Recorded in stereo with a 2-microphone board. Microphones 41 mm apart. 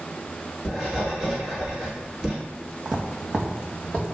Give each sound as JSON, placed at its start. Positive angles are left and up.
{"t": 0.7, "sound": "writing", "side_deg": -10, "distance_m": 1.8}
{"t": 2.9, "sound": "footsteps", "side_deg": -20, "distance_m": 0.7}